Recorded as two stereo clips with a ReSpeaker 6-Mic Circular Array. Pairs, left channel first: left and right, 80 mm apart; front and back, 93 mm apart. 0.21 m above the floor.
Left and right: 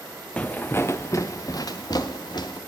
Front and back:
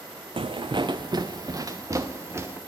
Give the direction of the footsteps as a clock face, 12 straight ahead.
7 o'clock.